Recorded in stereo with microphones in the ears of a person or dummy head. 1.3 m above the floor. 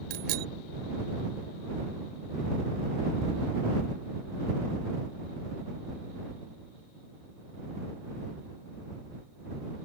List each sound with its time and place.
0.1 s a bicycle bell: 60° right (ahead or behind)